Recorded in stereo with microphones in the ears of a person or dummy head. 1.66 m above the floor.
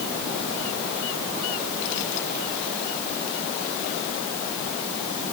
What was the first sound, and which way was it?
Only background noise.